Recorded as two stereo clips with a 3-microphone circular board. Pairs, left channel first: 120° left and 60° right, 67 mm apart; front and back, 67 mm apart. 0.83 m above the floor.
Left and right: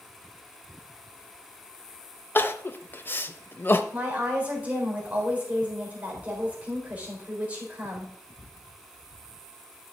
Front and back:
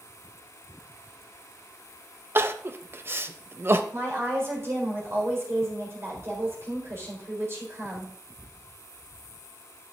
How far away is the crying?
About 0.7 m.